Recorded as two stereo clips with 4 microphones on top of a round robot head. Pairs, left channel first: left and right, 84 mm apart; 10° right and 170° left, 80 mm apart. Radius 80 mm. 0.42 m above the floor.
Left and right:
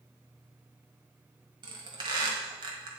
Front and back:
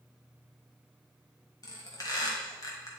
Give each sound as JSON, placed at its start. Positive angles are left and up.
{"t": 1.6, "sound": "a squeak", "azimuth_deg": -60, "distance_m": 1.4}